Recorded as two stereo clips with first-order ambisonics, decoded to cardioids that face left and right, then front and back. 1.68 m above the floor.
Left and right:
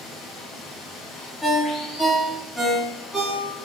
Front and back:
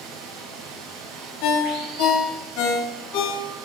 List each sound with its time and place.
0.0 s running water: 165° left, 4.5 m
1.4 s a ringtone: 5° right, 3 m